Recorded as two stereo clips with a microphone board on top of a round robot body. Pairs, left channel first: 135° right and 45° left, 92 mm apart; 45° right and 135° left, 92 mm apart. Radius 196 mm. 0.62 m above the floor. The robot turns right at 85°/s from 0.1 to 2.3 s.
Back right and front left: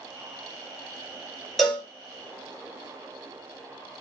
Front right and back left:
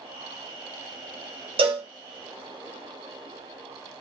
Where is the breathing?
No breathing in this recording.